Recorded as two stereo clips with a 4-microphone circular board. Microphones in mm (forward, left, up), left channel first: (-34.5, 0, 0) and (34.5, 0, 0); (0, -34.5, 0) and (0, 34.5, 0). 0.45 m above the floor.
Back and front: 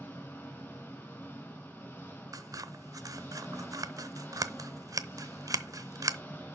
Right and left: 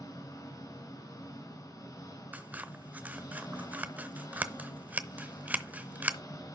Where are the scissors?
25° left, 0.7 m.